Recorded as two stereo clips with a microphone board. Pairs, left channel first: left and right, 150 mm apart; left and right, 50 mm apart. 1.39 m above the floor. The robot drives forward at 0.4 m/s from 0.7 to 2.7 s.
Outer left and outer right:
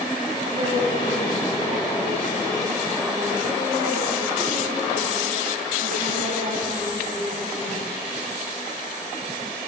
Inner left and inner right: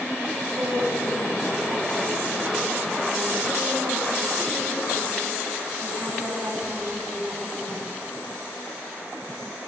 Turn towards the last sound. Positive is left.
turn(degrees=-60)  # may be behind; listen again after turning